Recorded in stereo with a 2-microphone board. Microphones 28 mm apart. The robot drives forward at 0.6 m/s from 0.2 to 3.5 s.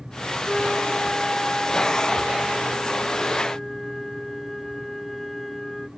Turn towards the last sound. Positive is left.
turn(degrees=5)  # may be behind; listen again after turning